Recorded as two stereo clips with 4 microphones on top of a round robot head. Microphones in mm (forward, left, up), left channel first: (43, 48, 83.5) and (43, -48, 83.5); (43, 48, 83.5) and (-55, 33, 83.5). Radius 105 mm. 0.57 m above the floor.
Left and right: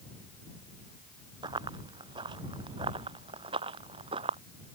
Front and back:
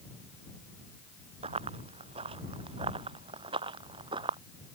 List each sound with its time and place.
1.4 s running footsteps: 140° right; by 4.4 s 125° right